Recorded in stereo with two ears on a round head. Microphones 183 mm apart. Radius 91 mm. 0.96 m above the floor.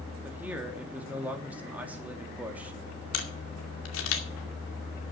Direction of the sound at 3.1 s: 75° left (ahead or behind).